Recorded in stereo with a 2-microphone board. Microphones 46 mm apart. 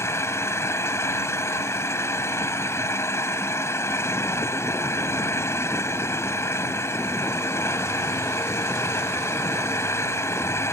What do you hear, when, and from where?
0.0 s an engine running: 85° left